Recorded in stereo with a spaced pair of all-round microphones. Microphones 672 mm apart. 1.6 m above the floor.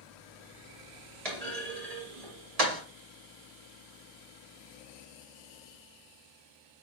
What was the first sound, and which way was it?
A clunk, 55° right (ahead or behind).